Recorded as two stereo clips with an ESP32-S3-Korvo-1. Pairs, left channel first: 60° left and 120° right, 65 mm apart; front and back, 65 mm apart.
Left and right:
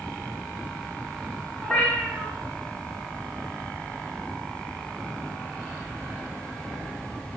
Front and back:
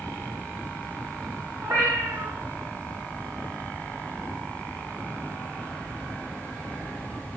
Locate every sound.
1.6 s a cat meowing: 135° left, 1.1 m